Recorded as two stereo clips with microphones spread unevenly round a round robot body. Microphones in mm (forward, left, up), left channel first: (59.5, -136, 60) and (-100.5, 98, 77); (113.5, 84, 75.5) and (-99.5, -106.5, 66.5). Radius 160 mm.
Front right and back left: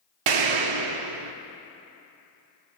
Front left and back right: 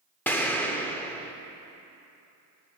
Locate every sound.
0.3 s an explosion: 125° left, 0.7 m